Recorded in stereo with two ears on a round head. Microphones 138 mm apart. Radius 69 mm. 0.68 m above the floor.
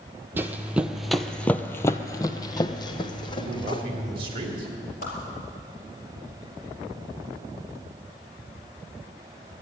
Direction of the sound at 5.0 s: 55° left (ahead or behind).